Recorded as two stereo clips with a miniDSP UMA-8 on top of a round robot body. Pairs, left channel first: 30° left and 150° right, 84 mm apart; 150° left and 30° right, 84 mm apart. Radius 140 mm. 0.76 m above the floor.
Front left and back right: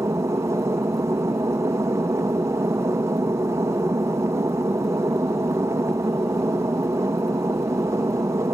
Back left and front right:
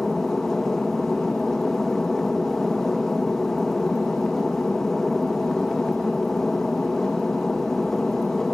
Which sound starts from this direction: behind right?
An aircraft, at 0.0 s.